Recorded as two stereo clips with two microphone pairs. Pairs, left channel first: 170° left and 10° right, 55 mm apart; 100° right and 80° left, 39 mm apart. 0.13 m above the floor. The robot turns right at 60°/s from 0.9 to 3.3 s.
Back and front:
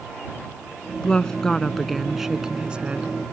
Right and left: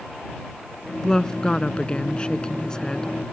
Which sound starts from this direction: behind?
A woman speaking, at 1.0 s.